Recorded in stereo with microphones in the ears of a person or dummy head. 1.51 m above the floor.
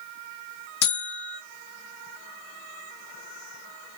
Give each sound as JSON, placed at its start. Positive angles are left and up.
{"t": 0.8, "sound": "a buzzer", "side_deg": 80, "distance_m": 1.3}